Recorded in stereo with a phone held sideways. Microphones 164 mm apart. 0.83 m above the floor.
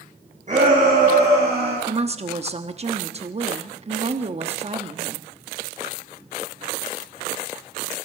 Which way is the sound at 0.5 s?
50° right (ahead or behind).